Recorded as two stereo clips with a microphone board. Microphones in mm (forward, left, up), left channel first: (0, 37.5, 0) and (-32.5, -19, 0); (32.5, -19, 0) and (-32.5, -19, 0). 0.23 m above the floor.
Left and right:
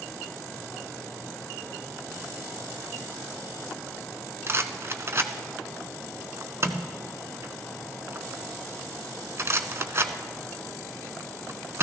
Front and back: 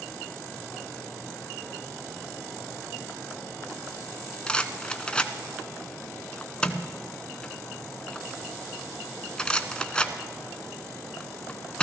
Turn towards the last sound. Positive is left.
turn(degrees=-75)